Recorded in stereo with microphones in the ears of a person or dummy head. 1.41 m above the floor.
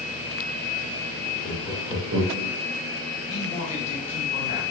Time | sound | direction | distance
1.4 | laughter | 40° left (ahead or behind) | 0.8 m
3.3 | a man speaking | 40° left (ahead or behind) | 0.9 m